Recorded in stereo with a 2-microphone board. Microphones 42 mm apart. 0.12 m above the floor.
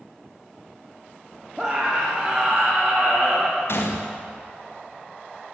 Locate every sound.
1.6 s a scream: 10° right (ahead or behind), 4.5 m
3.7 s a gunshot: 65° left (ahead or behind), 4 m